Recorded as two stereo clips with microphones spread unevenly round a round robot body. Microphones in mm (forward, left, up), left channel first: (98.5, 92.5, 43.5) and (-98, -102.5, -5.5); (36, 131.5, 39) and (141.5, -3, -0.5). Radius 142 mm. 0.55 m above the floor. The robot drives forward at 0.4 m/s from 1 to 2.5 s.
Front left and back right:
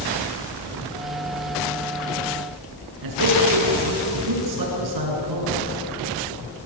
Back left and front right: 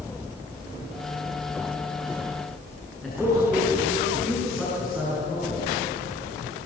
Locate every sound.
3.0 s a man speaking: 140° right, 8.5 m